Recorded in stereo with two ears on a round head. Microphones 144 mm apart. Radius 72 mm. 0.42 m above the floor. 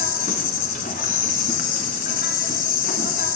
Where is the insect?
50° left (ahead or behind), 1.1 m.